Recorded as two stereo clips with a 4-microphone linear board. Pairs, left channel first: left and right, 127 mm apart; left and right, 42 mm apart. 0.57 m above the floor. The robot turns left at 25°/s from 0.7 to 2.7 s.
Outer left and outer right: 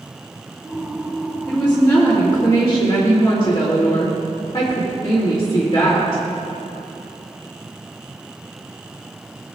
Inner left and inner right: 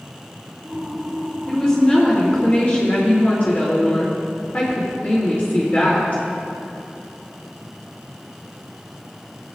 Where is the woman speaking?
170° left, 2.0 m; by 6.2 s 140° left, 2.0 m.